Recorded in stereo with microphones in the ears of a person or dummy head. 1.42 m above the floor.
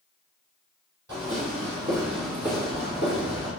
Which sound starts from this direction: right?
Footsteps, at 1.1 s.